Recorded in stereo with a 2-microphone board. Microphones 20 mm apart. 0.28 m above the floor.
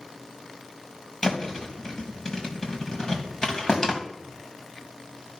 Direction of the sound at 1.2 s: 30° left (ahead or behind).